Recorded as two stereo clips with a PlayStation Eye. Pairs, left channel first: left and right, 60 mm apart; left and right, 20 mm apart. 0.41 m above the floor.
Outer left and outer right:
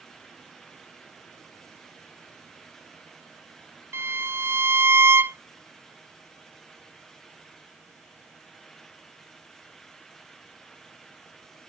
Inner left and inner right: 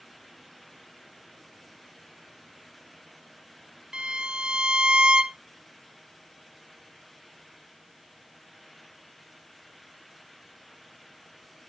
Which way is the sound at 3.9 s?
45° right (ahead or behind).